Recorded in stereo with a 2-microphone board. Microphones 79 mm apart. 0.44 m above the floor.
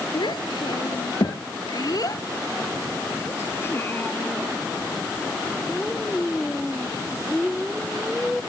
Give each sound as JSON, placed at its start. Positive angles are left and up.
{"t": 0.1, "sound": "a child speaking", "side_deg": 80}